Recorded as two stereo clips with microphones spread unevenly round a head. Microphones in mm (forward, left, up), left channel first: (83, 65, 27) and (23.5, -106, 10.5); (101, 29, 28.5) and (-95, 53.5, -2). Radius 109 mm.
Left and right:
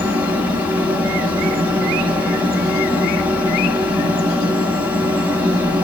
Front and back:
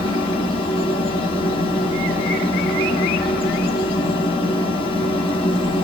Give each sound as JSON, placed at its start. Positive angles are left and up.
{"t": 0.0, "sound": "a fan", "azimuth_deg": -55, "distance_m": 1.1}